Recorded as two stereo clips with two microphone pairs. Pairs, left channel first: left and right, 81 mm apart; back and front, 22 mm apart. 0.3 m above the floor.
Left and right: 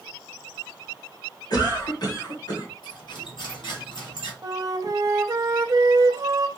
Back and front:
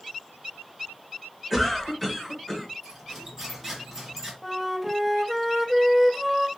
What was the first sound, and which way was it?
A cough, 95° left.